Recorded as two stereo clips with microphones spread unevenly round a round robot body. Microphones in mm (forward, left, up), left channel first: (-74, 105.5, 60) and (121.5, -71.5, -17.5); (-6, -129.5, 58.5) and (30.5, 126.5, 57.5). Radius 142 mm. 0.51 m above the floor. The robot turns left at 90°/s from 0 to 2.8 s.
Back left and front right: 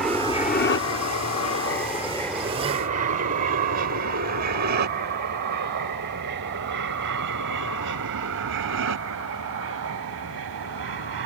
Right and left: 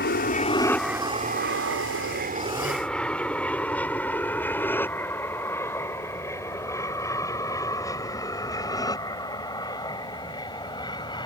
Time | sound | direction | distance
0.0 | an aircraft | 110° right | ?